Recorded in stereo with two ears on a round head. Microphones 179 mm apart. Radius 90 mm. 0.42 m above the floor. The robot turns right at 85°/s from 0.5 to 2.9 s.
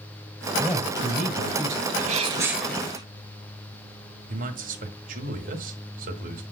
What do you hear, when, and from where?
0.6 s a man speaking: 175° left, 3 m; by 1.8 s 80° right, 3 m
1.9 s a sneeze: 65° right, 1.5 m; by 3.0 s 25° left, 1.5 m
4.3 s a man speaking: 45° right (ahead or behind), 1.7 m